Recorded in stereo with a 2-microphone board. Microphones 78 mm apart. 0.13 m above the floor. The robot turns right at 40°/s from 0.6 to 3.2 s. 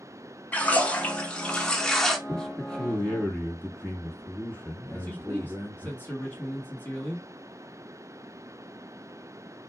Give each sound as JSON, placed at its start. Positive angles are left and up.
{"t": 0.5, "sound": "a splash", "side_deg": 20, "distance_m": 0.7}
{"t": 2.3, "sound": "a man speaking", "side_deg": 5, "distance_m": 1.6}
{"t": 4.9, "sound": "a man speaking", "side_deg": 20, "distance_m": 1.4}